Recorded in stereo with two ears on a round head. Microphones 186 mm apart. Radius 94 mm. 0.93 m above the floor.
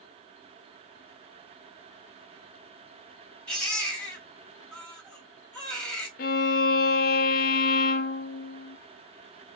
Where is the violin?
45° left (ahead or behind), 0.5 m.